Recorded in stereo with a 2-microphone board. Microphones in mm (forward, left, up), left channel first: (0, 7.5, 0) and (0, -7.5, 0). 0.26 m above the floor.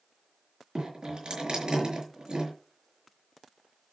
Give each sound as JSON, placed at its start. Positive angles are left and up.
{"t": 0.8, "sound": "dripping", "side_deg": -70, "distance_m": 5.5}